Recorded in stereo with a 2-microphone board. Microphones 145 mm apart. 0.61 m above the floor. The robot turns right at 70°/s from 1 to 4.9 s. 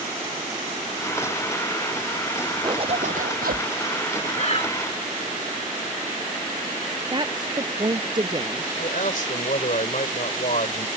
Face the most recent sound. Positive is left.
turn(degrees=70)  # may be behind; listen again after turning